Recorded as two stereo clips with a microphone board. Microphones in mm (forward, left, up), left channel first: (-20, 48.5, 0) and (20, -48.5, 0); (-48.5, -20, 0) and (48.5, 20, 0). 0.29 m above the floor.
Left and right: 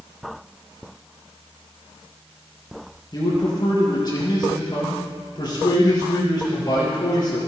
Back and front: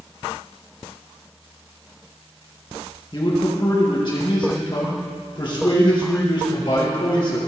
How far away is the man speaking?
About 5.5 m.